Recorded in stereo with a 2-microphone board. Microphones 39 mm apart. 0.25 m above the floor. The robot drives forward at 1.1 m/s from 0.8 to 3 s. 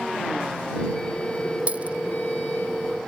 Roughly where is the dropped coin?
Right.